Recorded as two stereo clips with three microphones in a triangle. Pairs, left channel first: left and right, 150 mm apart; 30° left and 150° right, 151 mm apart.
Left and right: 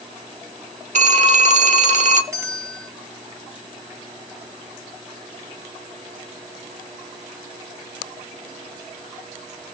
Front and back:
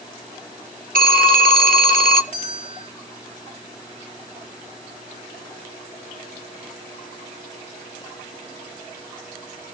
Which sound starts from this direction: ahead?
A bell, at 2.3 s.